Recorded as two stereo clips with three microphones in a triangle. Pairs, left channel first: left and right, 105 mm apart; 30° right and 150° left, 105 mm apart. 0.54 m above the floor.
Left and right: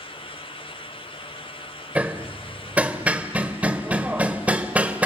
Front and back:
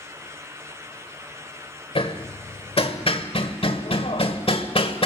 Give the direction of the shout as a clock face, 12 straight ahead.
I don't hear a shout.